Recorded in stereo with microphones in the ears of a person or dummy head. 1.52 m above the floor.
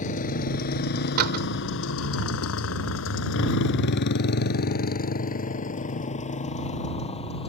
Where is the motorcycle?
45° left (ahead or behind); by 7.5 s 30° left (ahead or behind).